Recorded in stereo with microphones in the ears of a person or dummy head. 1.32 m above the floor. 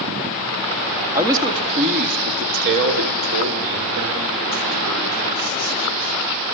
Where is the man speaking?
15° right (ahead or behind), 2 m; by 6.2 s 80° right, 8 m.